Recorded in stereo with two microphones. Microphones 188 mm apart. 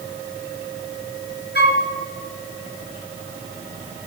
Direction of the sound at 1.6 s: 65° left (ahead or behind).